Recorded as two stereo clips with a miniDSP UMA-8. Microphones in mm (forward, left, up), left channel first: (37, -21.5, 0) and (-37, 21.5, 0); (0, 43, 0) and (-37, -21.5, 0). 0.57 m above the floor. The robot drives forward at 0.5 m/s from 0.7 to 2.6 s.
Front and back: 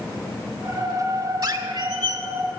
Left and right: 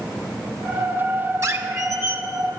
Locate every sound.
1.4 s a squeak: 165° right, 0.9 m; by 2.2 s 170° right, 1.3 m